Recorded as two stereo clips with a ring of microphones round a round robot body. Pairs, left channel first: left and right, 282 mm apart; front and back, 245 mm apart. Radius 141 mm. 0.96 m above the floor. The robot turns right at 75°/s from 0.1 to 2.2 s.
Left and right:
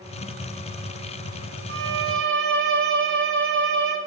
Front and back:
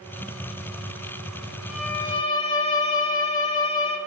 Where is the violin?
95° right, 0.9 m; by 4.0 s 60° right, 0.9 m.